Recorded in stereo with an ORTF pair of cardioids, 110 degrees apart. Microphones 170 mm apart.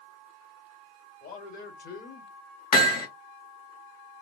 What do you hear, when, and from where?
1.2 s a man speaking: 65° left, 1.9 m; by 2.3 s 50° left, 1.0 m
2.7 s hammering: 55° left, 1.5 m